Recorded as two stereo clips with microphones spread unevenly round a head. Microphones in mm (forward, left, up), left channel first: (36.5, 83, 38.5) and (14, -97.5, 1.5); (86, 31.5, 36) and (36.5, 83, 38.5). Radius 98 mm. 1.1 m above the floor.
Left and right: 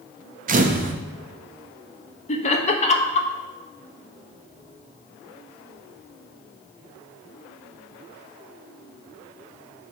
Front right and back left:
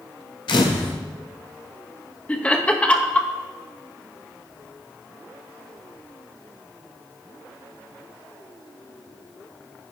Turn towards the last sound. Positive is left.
turn(degrees=25)